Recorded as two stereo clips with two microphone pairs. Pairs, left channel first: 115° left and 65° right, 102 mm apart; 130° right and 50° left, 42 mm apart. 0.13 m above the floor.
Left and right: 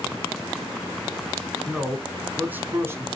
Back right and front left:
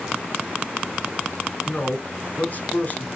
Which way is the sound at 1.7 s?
155° right.